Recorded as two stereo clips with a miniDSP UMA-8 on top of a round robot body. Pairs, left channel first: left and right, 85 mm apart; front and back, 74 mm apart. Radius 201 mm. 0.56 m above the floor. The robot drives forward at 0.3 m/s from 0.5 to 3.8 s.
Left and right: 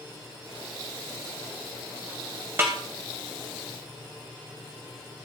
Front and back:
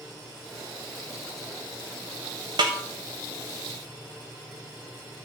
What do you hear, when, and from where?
2.6 s a snare drum: 155° right, 0.5 m; by 2.8 s 160° right, 0.6 m